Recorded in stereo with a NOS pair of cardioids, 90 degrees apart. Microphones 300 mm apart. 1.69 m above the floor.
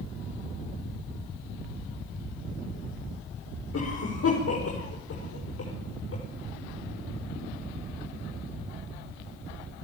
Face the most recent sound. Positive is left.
turn(degrees=50)